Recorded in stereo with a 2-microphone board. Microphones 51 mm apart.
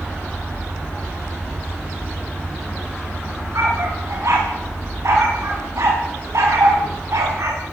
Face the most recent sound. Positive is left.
turn(degrees=-70)  # may be behind; listen again after turning